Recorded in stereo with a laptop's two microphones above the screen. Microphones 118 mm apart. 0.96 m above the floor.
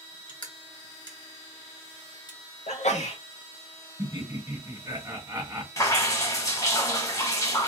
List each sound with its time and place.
0.3 s crushing: 35° left (ahead or behind), 0.9 m
2.7 s a sneeze: 75° left (ahead or behind), 0.9 m
4.0 s laughter: 25° right (ahead or behind), 1.6 m
5.8 s dripping: 30° left (ahead or behind), 1.0 m